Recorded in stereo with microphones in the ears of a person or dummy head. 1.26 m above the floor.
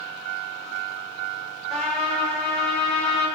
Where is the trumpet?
10° left (ahead or behind), 1.6 m.